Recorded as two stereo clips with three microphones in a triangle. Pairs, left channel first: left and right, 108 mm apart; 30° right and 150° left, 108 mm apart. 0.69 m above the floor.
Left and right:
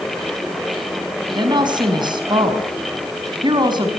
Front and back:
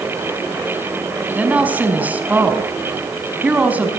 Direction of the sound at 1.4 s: 135° right.